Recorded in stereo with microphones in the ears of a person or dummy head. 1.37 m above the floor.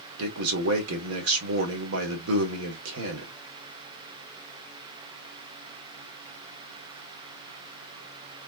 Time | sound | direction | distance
0.2 | a man speaking | 85° right | 1.4 m